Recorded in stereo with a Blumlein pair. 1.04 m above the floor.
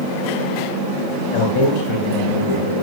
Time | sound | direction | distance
1.3 | a man speaking | 45° left | 5.5 m